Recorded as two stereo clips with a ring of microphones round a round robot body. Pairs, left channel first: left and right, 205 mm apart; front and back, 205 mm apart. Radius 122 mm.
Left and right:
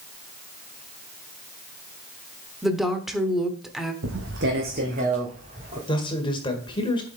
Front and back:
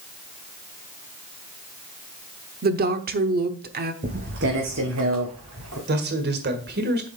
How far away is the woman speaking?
About 1.0 m.